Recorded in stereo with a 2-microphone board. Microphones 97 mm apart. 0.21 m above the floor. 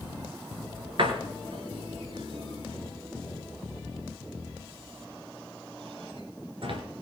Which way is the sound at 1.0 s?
60° right (ahead or behind).